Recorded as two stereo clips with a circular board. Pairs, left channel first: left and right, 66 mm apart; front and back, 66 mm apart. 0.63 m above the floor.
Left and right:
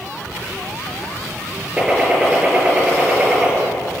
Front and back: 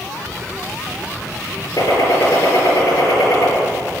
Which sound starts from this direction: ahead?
A gunshot, at 1.8 s.